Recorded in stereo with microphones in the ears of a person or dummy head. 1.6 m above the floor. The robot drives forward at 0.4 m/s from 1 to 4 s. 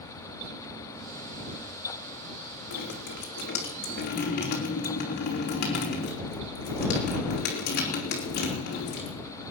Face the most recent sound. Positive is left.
turn(degrees=55)  # may be behind; listen again after turning